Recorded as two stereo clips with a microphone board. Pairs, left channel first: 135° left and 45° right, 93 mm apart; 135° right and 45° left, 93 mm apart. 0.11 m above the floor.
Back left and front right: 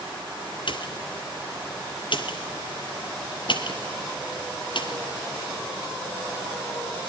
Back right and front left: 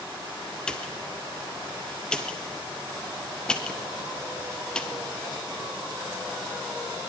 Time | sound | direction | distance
0.7 | a pop | 145° left | 2.5 m